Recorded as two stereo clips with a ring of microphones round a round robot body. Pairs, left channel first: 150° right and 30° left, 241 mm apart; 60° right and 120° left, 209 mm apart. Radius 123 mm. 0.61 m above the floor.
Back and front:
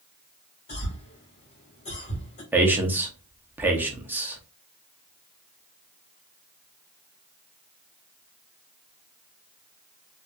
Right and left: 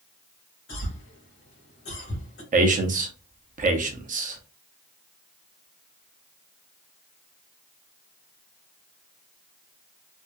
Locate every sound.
0.7 s a cough: 90° right, 2 m
2.5 s a man speaking: 110° left, 0.9 m